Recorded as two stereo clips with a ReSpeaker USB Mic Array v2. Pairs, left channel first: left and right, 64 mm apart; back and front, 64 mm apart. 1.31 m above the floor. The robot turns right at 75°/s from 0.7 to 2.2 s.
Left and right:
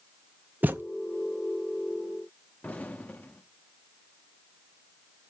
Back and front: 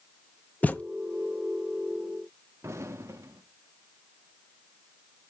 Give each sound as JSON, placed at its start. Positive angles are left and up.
{"t": 0.6, "sound": "a thud", "azimuth_deg": -130, "distance_m": 0.7}
{"t": 2.6, "sound": "an explosion", "azimuth_deg": 30, "distance_m": 1.1}